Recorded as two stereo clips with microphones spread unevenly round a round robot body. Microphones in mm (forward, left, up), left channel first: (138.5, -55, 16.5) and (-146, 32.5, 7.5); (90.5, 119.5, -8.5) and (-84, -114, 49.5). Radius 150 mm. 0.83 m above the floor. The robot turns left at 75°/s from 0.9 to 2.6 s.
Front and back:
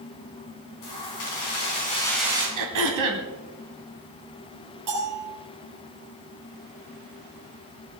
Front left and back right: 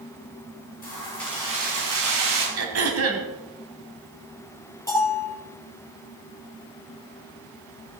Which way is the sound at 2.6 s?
165° right.